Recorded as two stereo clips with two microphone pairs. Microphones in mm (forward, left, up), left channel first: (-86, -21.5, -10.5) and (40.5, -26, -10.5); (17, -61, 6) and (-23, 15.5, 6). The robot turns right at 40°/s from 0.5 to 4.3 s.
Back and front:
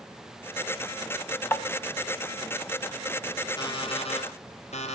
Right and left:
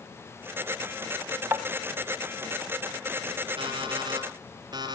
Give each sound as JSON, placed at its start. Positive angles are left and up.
{"t": 1.5, "sound": "tapping", "azimuth_deg": 135, "distance_m": 1.0}
{"t": 3.6, "sound": "an alarm clock", "azimuth_deg": 125, "distance_m": 3.5}